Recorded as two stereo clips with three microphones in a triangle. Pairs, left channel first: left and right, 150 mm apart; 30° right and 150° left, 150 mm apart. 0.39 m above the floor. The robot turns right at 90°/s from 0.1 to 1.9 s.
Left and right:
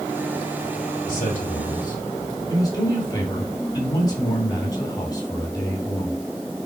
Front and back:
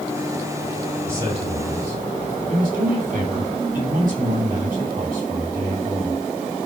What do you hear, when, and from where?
1.1 s a man speaking: 75° left, 3.5 m; by 6.2 s 150° left, 3.5 m